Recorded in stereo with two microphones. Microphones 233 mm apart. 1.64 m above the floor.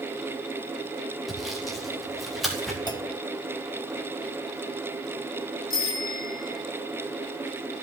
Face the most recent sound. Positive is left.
turn(degrees=65)  # may be behind; listen again after turning